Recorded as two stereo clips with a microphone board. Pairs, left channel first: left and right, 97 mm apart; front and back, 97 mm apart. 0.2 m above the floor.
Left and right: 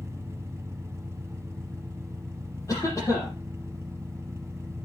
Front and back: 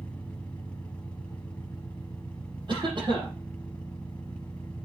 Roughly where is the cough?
Behind left.